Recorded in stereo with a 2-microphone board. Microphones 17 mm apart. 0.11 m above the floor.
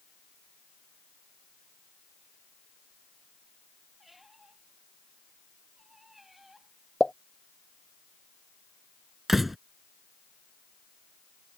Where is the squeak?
10° right (ahead or behind).